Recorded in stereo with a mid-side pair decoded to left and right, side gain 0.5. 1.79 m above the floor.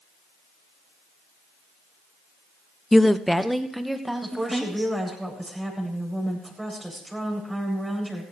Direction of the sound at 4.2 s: 15° right.